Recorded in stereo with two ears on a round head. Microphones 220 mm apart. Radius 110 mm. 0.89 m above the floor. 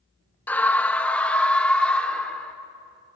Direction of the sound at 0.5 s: 5° left (ahead or behind).